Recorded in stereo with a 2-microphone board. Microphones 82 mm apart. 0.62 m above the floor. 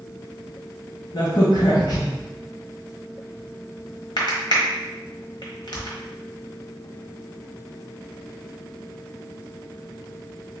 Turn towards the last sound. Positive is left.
turn(degrees=65)  # may be behind; listen again after turning